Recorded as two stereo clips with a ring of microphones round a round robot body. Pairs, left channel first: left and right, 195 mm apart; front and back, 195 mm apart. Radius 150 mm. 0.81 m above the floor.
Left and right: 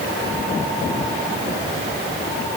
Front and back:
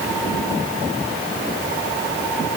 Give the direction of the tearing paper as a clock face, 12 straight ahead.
No tearing paper in this recording.